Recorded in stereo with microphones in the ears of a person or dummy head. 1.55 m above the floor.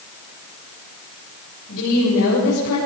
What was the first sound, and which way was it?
A woman speaking, 70° left (ahead or behind).